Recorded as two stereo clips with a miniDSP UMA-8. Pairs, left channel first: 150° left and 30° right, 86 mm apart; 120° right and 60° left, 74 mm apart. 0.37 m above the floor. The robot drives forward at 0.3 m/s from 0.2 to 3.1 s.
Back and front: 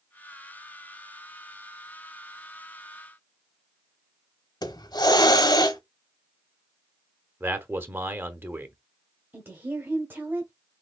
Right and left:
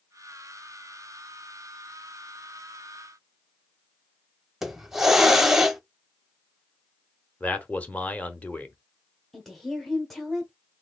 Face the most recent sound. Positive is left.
turn(degrees=-35)